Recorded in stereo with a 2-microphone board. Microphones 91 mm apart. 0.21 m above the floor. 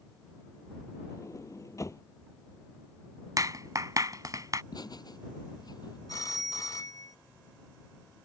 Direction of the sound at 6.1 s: 45° left (ahead or behind).